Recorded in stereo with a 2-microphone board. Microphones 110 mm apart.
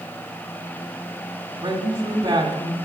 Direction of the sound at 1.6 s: 40° right (ahead or behind).